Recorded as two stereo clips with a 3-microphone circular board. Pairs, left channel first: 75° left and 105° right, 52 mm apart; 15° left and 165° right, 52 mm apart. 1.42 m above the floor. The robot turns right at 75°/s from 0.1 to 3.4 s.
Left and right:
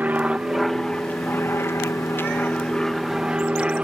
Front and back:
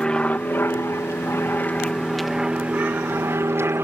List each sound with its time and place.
0.0 s an aircraft: 55° right; by 3.9 s 170° right